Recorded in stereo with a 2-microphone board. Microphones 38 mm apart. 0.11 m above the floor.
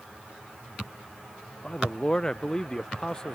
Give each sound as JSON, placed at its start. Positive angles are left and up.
{"t": 1.6, "sound": "a man speaking", "side_deg": 20}